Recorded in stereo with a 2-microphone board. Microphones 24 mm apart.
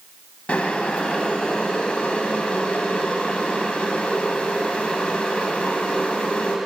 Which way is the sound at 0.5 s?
65° left (ahead or behind).